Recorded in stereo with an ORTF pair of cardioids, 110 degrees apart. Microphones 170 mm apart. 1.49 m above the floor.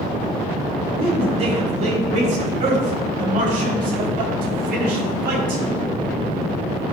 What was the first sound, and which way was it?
A man speaking, 35° right.